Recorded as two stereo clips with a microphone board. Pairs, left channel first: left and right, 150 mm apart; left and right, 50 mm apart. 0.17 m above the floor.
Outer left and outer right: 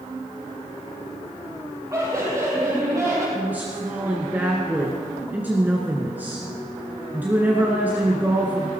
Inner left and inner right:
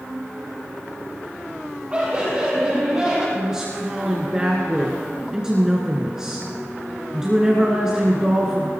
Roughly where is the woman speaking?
Centre.